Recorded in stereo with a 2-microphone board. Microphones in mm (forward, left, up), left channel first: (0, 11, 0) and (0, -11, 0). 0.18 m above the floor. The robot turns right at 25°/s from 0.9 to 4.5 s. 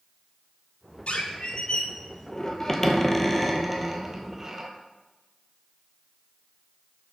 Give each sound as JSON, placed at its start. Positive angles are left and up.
{"t": 1.1, "sound": "a squeak", "azimuth_deg": 115, "distance_m": 0.8}